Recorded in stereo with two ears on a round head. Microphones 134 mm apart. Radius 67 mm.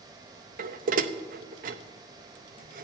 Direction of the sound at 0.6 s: 60° right (ahead or behind).